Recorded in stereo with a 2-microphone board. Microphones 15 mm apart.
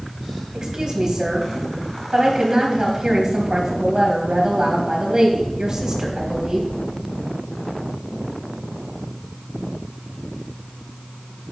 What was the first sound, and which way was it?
A woman speaking, 45° right (ahead or behind).